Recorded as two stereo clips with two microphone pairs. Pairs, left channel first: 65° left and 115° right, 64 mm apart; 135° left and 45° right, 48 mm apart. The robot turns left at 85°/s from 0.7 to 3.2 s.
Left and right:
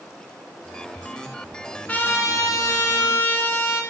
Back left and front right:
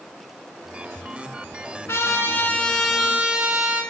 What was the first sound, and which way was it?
A trumpet, 135° left.